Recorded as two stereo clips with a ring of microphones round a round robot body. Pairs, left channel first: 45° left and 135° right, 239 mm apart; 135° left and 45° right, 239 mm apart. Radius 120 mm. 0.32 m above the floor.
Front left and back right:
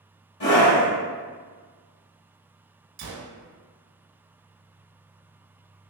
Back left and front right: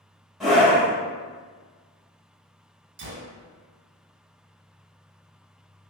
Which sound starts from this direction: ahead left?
A scream, at 0.4 s.